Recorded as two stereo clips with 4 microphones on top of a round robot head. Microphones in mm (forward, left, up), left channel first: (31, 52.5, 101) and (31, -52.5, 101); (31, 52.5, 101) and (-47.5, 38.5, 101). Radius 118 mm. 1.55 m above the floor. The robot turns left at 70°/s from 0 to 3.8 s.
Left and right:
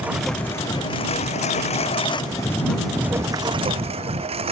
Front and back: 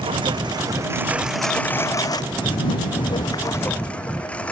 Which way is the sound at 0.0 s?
165° right.